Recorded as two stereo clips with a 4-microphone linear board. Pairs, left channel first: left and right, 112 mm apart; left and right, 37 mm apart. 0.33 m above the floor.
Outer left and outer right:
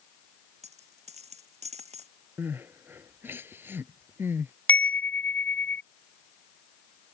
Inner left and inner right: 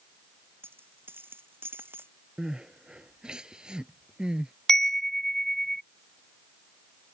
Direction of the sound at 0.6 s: 75° right (ahead or behind).